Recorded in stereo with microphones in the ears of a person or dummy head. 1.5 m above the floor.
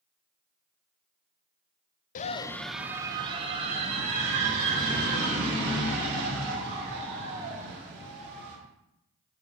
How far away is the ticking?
No ticking in this recording.